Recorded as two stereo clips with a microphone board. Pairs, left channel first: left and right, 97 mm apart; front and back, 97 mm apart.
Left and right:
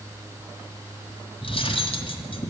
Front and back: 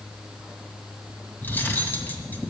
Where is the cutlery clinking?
70° left, 1.8 m.